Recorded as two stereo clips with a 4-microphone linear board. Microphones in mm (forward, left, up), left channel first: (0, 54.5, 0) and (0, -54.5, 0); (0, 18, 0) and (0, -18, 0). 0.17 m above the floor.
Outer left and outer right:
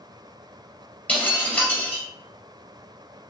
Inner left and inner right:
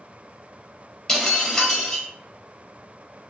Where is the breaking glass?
15° left (ahead or behind), 2 m.